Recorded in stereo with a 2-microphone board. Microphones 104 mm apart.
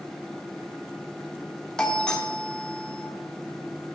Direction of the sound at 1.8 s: 10° left (ahead or behind).